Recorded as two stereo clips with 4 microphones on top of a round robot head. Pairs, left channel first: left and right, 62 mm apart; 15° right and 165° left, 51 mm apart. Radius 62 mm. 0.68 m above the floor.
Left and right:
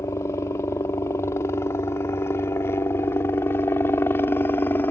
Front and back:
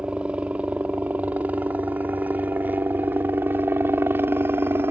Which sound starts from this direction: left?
A helicopter, at 0.0 s.